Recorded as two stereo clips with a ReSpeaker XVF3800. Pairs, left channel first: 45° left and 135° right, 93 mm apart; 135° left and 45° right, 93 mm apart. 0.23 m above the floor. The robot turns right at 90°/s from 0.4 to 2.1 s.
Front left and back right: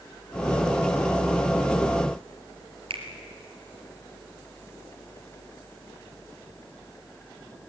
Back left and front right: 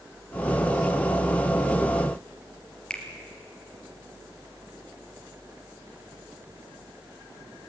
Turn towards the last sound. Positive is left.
turn(degrees=-145)